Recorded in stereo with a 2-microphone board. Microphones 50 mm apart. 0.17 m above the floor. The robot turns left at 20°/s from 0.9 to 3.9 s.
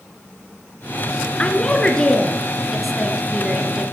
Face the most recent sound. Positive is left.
turn(degrees=-20)